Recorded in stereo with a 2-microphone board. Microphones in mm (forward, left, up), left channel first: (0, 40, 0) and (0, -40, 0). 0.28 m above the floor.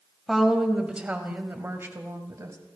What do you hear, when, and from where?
0.3 s a woman speaking: centre (ahead or behind), 1.7 m; by 2.6 s 45° right (ahead or behind), 1.9 m